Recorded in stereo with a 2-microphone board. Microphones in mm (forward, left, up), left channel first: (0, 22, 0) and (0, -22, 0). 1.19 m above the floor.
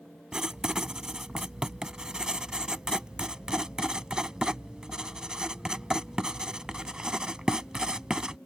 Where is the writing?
20° right (ahead or behind).